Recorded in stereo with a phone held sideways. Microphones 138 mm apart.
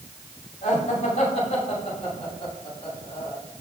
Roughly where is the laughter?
Left.